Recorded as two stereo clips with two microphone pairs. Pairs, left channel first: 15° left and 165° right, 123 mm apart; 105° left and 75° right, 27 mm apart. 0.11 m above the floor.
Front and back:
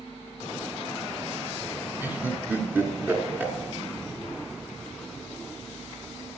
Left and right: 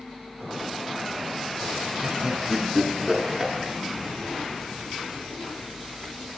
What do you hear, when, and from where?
2.0 s laughter: 130° right, 1.3 m